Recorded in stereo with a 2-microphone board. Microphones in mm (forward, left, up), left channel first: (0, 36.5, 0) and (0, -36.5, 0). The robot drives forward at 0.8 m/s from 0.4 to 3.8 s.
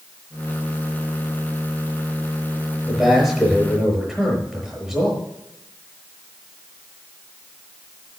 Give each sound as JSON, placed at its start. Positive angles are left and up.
{"t": 2.9, "sound": "a man speaking", "side_deg": 0, "distance_m": 5.5}